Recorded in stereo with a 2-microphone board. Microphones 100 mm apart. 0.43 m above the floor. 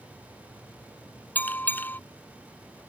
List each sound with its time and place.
1.4 s a bell: 20° left (ahead or behind)